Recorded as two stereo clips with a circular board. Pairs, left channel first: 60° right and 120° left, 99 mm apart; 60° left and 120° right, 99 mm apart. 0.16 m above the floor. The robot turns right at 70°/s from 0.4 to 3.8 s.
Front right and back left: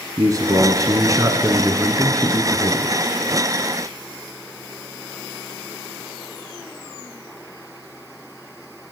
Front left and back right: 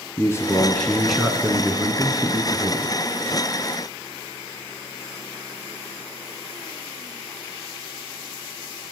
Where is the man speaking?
100° left, 1.2 m; by 3.0 s 80° right, 1.2 m.